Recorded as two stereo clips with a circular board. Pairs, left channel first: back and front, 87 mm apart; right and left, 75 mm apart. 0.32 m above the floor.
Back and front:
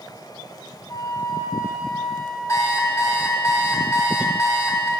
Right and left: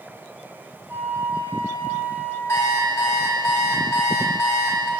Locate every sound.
0.9 s a flute: 140° left, 2.5 m
2.5 s an alarm clock: 135° right, 1.3 m